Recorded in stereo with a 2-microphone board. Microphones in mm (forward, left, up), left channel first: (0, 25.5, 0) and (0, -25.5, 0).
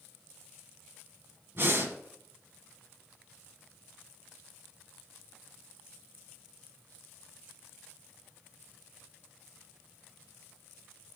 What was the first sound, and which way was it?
Breathing, 50° right (ahead or behind).